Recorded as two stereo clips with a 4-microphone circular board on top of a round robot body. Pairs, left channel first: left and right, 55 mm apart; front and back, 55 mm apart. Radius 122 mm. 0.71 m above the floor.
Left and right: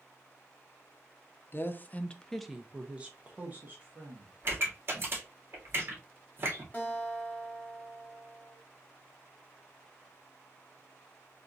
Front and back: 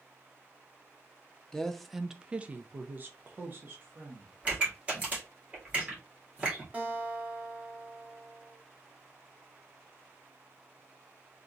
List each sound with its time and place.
1.5 s a woman speaking: 75° left, 0.7 m; by 4.3 s 135° right, 1.4 m
4.4 s a pop: 125° right, 1.8 m
6.7 s a guitar: 130° left, 1.3 m